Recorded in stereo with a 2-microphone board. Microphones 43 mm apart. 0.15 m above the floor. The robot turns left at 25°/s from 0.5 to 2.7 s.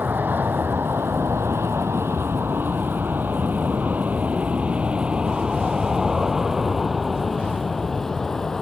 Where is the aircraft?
45° right (ahead or behind); by 8.6 s 10° left (ahead or behind).